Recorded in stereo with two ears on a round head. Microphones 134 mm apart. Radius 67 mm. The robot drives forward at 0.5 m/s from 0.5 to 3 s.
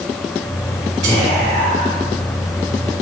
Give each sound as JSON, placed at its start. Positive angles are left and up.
{"t": 1.0, "sound": "whispering", "side_deg": -45, "distance_m": 1.3}